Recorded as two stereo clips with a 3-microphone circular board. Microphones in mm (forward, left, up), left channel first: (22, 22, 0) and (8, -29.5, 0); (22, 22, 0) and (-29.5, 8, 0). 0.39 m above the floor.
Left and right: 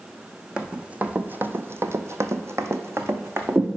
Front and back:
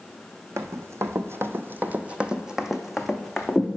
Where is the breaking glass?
No breaking glass in this recording.